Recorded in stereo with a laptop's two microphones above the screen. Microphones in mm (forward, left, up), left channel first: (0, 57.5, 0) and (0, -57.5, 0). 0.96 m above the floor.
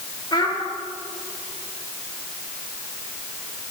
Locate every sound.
0.3 s a child speaking: 40° left (ahead or behind), 1.4 m